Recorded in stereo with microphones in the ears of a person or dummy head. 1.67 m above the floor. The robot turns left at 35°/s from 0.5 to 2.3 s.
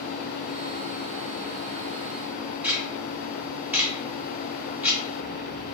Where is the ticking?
5° right (ahead or behind), 0.6 m.